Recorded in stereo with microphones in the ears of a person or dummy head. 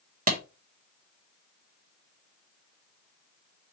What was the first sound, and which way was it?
A clap, 45° right (ahead or behind).